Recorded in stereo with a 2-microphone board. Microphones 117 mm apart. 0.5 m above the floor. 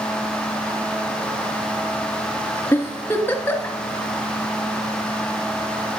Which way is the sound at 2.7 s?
20° left (ahead or behind).